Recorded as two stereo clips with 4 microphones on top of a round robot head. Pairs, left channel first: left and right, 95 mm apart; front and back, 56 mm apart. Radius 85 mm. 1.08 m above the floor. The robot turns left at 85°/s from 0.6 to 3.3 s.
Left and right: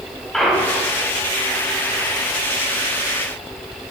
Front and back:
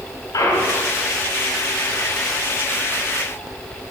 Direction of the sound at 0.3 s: 5° left.